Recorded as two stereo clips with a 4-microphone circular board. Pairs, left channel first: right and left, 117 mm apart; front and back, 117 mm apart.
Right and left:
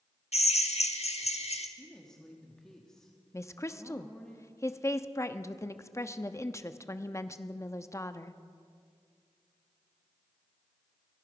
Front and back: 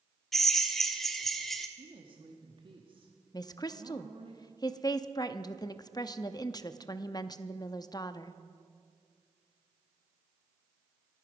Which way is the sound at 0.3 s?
85° right.